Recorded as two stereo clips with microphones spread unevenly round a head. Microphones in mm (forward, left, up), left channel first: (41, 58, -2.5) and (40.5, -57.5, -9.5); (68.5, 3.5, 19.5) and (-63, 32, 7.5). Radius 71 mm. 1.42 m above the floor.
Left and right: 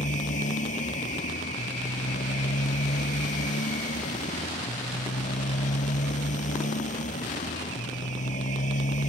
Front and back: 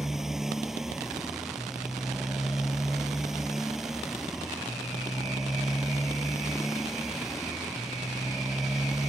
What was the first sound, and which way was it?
A motorcycle, 80° left.